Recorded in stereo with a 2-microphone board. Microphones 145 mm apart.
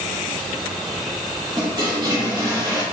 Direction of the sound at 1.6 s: 30° right (ahead or behind).